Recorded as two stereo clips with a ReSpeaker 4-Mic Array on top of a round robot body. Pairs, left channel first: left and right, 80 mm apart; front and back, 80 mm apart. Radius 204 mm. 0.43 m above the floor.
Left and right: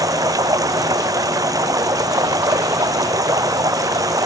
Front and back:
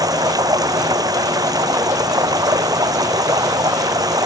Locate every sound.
0.0 s running water: 135° right